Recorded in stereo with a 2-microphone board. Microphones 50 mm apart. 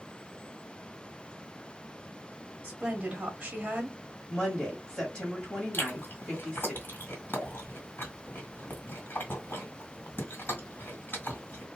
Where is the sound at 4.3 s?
15° left (ahead or behind), 1.6 m.